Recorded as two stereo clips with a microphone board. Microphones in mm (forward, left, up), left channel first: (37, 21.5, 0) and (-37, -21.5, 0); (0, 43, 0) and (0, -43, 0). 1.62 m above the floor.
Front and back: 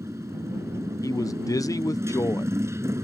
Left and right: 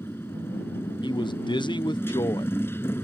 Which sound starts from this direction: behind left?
A motorcycle, at 0.0 s.